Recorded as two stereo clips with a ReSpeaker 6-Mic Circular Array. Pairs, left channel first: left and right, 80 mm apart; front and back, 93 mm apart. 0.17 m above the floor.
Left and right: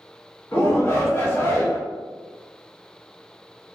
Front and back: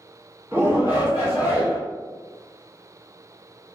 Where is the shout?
125° left, 1.4 m.